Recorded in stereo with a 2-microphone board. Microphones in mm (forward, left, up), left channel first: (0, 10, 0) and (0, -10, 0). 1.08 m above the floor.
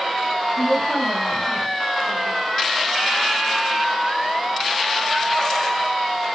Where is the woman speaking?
60° left (ahead or behind), 6.5 m.